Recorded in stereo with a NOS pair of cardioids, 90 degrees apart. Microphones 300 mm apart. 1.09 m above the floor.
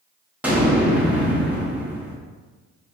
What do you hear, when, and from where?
0.4 s an explosion: 5° right, 1.0 m